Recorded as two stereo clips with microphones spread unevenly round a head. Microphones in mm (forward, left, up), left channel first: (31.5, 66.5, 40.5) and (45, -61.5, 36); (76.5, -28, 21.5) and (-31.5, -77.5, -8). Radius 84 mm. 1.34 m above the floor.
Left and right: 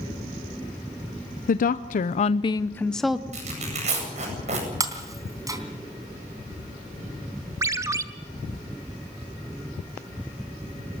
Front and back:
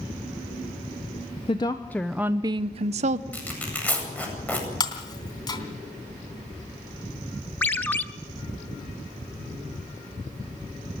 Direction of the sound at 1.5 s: 90° left.